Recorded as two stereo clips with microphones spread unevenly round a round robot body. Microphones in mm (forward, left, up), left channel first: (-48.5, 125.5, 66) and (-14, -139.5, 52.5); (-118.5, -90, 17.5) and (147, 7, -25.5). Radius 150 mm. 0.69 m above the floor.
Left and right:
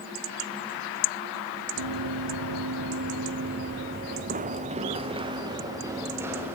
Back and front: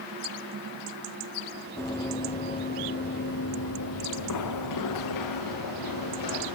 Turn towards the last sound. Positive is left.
turn(degrees=-165)